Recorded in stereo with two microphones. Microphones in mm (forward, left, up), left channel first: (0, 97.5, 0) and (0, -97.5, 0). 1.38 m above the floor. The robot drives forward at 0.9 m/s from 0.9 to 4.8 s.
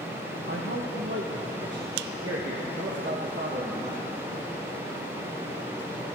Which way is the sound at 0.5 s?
80° right.